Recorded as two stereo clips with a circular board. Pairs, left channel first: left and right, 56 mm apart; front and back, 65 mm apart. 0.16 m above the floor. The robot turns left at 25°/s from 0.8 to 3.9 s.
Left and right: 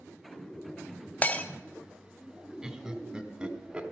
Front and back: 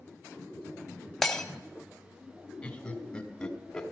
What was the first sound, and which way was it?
Breaking glass, 80° left.